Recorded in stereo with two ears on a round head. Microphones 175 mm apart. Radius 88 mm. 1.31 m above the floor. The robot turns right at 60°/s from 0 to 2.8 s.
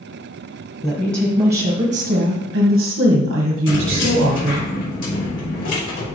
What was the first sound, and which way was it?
A woman speaking, 175° left.